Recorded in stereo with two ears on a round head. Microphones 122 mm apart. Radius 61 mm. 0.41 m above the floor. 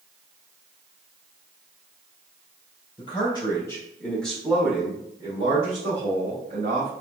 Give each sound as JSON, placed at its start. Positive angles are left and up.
{"t": 3.0, "sound": "a man speaking", "side_deg": 40, "distance_m": 1.4}